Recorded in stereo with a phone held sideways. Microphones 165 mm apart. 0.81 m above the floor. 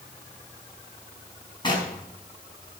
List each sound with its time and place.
1.6 s knocking: 30° left (ahead or behind), 4 m